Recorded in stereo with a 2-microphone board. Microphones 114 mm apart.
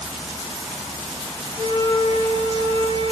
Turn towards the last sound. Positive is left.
turn(degrees=-45)  # may be behind; listen again after turning